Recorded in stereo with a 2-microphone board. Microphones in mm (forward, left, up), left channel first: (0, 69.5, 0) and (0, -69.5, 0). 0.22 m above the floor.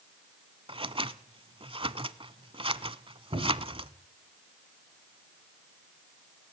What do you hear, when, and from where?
0.7 s scissors: 40° right (ahead or behind), 0.8 m
3.3 s a cupboard door: 55° right (ahead or behind), 9.5 m